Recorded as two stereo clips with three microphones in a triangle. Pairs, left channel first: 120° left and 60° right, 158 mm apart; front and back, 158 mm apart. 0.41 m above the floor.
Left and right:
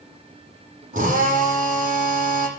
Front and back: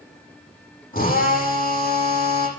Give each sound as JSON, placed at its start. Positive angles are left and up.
{"t": 0.9, "sound": "a drill", "azimuth_deg": -25, "distance_m": 8.5}